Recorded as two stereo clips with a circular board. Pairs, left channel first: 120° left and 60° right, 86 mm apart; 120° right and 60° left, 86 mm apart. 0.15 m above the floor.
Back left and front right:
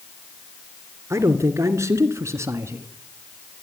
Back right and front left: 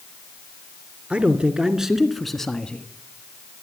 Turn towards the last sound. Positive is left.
turn(degrees=-55)